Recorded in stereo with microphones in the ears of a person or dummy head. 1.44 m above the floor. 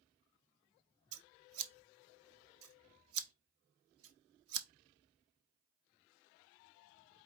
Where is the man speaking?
No man speaking in this recording.